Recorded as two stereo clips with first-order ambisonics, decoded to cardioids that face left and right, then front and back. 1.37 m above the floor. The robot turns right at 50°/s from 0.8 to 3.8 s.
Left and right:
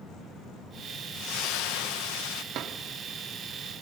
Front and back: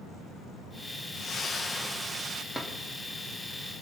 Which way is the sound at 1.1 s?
50° left.